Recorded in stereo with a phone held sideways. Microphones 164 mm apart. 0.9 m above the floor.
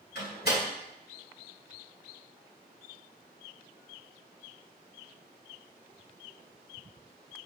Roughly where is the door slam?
Left.